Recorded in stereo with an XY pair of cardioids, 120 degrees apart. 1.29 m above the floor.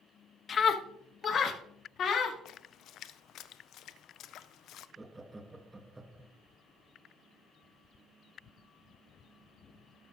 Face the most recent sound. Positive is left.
turn(degrees=-15)